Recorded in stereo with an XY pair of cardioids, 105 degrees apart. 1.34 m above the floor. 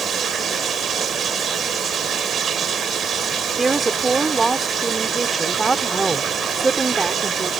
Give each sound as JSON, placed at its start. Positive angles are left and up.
{"t": 0.0, "sound": "running water", "azimuth_deg": -55}
{"t": 3.6, "sound": "a woman speaking", "azimuth_deg": -25}